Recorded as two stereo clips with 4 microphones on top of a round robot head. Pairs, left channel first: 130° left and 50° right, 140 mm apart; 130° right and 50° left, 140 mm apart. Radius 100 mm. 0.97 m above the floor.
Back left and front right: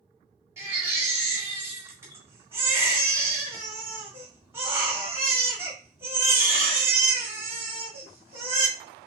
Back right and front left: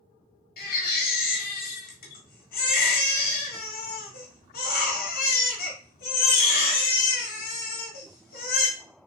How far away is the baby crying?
About 1.5 m.